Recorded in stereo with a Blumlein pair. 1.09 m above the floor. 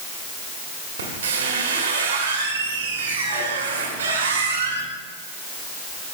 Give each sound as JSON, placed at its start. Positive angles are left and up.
{"t": 1.0, "sound": "a squeak", "azimuth_deg": -60, "distance_m": 1.7}